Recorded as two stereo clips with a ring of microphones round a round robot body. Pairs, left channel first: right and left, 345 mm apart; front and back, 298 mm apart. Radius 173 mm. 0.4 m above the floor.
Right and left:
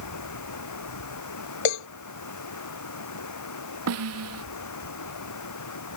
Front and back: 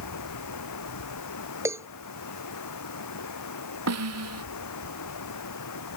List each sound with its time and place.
0.0 s running water: 45° right
1.6 s a cowbell: 95° right
3.9 s a snare drum: 140° left